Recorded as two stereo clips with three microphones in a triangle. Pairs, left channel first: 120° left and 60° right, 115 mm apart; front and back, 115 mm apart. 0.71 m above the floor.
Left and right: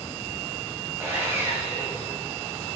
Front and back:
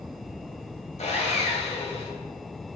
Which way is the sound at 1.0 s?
10° left.